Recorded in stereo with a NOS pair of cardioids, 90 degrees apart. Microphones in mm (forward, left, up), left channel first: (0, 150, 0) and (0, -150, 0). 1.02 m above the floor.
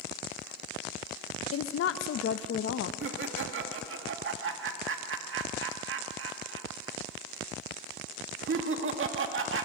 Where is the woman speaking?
50° left, 0.9 m.